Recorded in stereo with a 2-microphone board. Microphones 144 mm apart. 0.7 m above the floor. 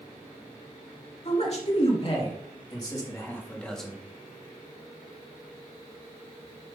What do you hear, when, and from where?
1.2 s a man speaking: 50° left (ahead or behind), 2 m; by 4.0 s centre (ahead or behind), 1.3 m